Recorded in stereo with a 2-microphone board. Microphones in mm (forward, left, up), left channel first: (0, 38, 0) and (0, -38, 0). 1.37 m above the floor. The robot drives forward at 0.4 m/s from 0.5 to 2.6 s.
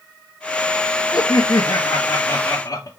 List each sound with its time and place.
1.1 s laughter: 60° left (ahead or behind), 0.9 m; by 2.9 s 45° left (ahead or behind), 1.0 m